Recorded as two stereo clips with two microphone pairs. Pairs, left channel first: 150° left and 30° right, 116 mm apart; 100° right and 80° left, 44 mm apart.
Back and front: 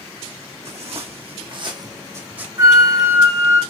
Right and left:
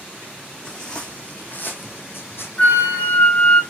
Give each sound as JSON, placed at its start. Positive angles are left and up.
{"t": 0.7, "sound": "footsteps", "azimuth_deg": -30, "distance_m": 1.4}
{"t": 2.6, "sound": "a flute", "azimuth_deg": -75, "distance_m": 0.9}